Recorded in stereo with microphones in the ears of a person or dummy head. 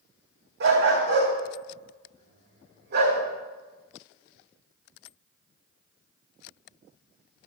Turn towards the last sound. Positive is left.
turn(degrees=-60)  # may be behind; listen again after turning